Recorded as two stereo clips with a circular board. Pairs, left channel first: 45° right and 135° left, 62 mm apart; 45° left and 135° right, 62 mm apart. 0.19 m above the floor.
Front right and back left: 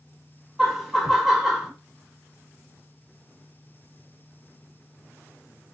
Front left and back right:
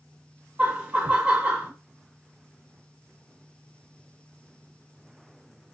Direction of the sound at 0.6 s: 145° right.